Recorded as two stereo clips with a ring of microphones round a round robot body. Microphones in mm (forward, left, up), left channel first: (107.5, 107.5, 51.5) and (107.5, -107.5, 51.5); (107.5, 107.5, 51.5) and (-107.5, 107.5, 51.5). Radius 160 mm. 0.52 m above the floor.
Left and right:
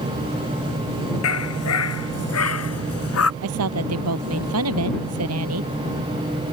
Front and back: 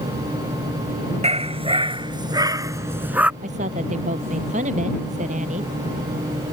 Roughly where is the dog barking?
Behind left.